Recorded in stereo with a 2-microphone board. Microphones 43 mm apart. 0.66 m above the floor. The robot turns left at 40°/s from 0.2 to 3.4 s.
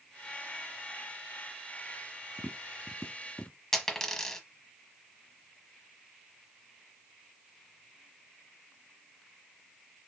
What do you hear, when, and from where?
2.4 s tapping: 10° right (ahead or behind), 1.1 m; by 3.6 s 15° left (ahead or behind), 1.1 m
3.7 s a dropped coin: 15° left (ahead or behind), 1.2 m